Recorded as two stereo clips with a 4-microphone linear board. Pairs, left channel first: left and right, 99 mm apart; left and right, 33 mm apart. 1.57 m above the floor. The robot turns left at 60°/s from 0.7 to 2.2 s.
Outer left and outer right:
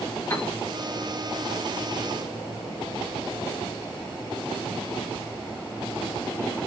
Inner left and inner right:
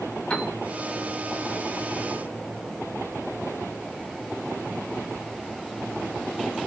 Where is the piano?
30° left (ahead or behind), 1.6 m.